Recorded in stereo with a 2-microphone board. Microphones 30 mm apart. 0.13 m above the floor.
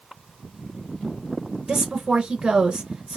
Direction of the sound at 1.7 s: 25° right (ahead or behind).